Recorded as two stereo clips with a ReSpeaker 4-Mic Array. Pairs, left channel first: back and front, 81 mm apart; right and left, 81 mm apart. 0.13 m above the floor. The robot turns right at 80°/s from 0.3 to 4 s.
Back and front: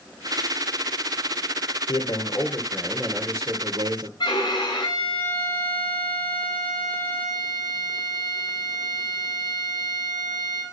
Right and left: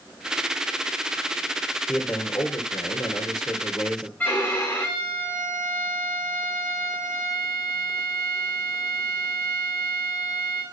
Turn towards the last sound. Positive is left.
turn(degrees=-155)